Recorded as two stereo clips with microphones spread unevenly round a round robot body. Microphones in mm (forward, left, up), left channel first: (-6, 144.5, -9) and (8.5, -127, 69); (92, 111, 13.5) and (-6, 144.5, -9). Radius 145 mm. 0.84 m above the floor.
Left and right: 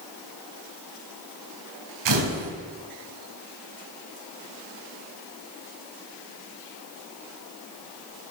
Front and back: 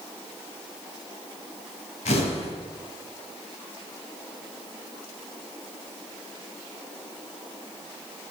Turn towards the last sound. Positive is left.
turn(degrees=-70)